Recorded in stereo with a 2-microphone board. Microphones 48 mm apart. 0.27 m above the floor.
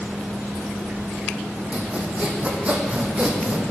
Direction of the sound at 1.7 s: 30° right (ahead or behind).